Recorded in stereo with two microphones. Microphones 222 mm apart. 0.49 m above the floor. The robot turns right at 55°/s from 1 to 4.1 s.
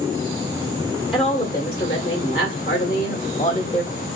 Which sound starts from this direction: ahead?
A woman speaking, at 1.1 s.